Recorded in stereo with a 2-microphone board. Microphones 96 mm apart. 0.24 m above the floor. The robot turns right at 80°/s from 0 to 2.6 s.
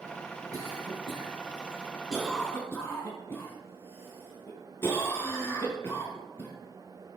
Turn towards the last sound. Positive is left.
turn(degrees=25)  # may be behind; listen again after turning